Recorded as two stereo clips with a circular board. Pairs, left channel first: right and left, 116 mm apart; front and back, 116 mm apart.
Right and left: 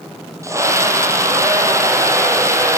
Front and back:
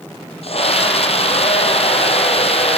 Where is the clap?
No clap in this recording.